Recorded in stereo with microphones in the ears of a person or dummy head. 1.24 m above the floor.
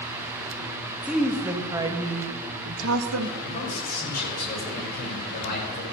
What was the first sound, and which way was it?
A woman speaking, centre (ahead or behind).